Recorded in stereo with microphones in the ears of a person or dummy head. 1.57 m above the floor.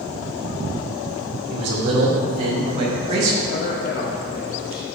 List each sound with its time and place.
1.5 s a man speaking: 45° right (ahead or behind), 2 m
3.5 s a man speaking: 50° left (ahead or behind), 0.8 m